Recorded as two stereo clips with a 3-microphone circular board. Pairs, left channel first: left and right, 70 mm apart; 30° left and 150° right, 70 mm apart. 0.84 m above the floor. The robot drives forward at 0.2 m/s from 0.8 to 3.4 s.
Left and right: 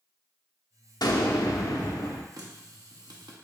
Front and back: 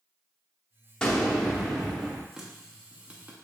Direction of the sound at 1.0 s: 105° left.